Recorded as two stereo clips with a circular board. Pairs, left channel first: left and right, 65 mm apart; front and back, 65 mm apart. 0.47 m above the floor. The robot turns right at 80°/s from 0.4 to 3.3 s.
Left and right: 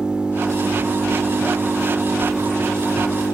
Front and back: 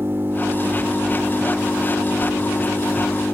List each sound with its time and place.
0.0 s an engine running: 155° right, 1.4 m; by 3.3 s 75° left, 1.4 m